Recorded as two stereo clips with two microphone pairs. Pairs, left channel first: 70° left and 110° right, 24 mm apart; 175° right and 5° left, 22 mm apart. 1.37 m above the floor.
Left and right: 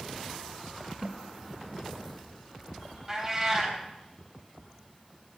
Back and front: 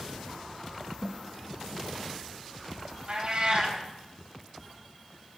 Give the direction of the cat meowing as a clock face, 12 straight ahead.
1 o'clock.